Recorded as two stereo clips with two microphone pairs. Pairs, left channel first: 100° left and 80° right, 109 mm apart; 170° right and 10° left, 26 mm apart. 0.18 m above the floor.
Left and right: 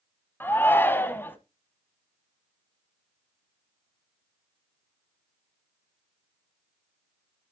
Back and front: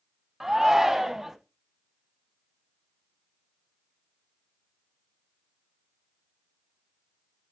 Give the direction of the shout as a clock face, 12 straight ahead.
10 o'clock.